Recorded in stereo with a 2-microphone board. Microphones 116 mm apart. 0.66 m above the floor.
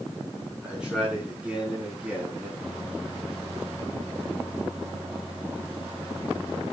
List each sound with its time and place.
0.6 s a man speaking: 5° right (ahead or behind), 6.5 m; by 2.5 s 15° right (ahead or behind), 4.5 m
2.6 s a microwave: 10° right (ahead or behind), 7 m